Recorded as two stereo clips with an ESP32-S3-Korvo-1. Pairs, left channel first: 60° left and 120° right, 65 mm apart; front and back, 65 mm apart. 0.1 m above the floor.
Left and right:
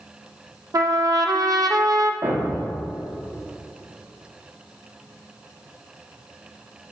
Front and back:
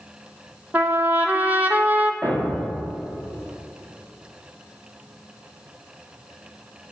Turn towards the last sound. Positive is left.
turn(degrees=-100)